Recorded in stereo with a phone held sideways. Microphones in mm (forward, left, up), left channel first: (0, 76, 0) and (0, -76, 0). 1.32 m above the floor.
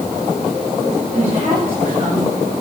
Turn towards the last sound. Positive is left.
turn(degrees=-45)  # may be behind; listen again after turning